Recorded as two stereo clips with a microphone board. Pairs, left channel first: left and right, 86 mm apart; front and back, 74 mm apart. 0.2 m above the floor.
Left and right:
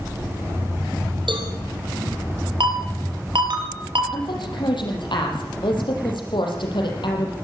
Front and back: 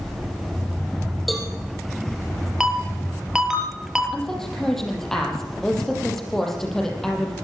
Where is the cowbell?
90° right, 4.5 m.